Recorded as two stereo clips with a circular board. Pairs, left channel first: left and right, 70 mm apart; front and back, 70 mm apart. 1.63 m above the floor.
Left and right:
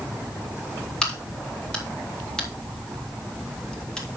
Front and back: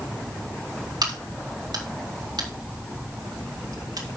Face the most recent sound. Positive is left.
turn(degrees=170)